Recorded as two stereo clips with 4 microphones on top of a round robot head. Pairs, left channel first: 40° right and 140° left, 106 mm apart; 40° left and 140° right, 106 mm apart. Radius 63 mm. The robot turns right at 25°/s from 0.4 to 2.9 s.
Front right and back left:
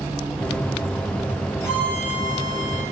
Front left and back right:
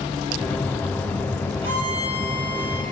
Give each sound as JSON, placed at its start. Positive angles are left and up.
{"t": 1.6, "sound": "a violin", "azimuth_deg": -105, "distance_m": 1.9}